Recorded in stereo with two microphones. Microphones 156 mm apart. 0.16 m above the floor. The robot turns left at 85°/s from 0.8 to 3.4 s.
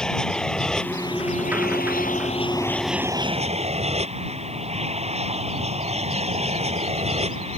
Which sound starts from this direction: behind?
An aircraft, at 0.0 s.